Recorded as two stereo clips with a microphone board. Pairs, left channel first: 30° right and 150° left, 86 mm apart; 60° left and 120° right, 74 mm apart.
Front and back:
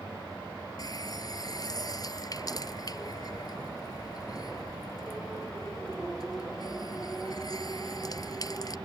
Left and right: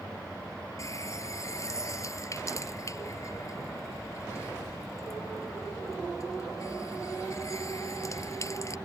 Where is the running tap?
15° left.